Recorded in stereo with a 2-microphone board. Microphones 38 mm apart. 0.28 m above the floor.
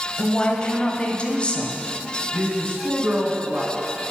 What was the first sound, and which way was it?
A woman speaking, 30° left (ahead or behind).